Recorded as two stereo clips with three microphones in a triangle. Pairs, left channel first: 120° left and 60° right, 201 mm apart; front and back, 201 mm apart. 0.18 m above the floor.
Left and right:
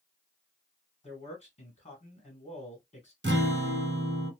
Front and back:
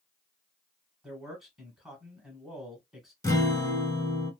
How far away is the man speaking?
About 1.3 m.